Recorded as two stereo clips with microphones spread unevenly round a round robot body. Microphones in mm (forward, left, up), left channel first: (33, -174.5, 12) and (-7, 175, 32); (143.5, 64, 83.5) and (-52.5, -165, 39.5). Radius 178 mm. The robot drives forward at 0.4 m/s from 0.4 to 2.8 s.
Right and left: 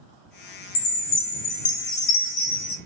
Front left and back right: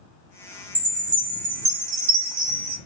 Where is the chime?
55° right, 0.8 m; by 2.8 s 120° right, 0.7 m.